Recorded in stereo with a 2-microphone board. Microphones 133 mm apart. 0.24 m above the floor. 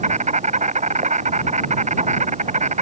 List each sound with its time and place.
0.0 s an insect: 55° right (ahead or behind)